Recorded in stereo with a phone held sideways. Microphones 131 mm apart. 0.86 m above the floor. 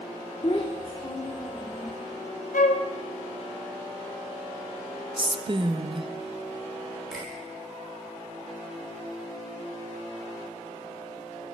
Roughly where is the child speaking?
Left.